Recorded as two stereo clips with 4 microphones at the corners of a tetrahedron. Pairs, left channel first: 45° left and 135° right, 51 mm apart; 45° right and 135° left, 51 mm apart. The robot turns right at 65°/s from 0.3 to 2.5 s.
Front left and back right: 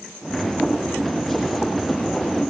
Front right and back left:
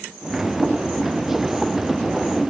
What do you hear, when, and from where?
Only background noise.